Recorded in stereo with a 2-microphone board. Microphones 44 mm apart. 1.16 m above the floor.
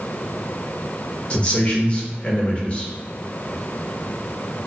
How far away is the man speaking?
About 0.7 m.